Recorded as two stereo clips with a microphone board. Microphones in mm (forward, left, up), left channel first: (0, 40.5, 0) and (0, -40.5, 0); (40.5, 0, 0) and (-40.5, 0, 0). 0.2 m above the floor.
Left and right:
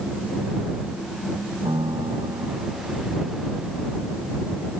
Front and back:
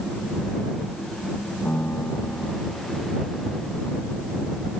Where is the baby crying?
No baby crying in this recording.